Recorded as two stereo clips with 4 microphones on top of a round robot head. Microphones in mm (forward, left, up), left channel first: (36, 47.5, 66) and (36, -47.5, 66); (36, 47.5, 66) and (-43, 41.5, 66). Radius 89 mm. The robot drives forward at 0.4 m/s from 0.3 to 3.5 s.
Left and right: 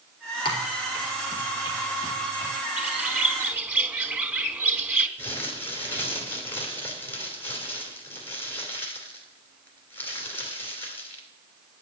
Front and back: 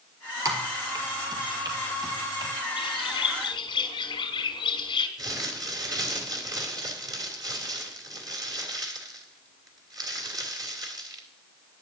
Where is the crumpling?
155° left, 2.5 m.